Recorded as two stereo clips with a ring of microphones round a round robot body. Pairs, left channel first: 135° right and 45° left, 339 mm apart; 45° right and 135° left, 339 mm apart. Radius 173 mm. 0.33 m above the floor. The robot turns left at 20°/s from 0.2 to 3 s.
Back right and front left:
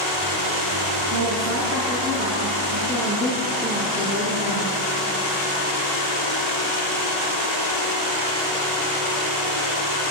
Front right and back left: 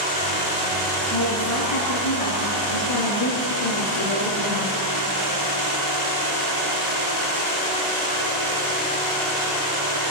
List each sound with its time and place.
1.1 s a woman speaking: 5° left, 5.5 m; by 4.7 s 35° right, 5.5 m